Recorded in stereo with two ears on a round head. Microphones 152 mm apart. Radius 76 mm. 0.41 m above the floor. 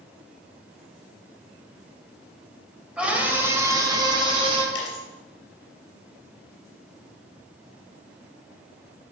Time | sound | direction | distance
3.0 | a scream | 5° right (ahead or behind) | 2 m
4.8 | a dropped coin | 80° left | 3 m